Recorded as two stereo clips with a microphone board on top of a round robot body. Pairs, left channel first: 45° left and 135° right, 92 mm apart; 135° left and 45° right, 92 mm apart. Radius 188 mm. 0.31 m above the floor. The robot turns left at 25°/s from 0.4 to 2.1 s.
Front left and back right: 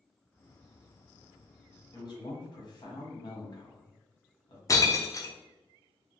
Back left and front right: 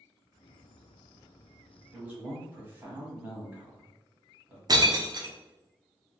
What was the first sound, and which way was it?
A man speaking, 30° left.